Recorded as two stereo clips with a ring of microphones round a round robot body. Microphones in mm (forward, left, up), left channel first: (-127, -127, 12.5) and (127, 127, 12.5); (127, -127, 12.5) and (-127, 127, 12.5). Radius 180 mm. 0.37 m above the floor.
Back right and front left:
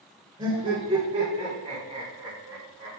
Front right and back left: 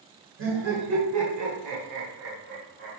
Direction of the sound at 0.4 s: 115° left.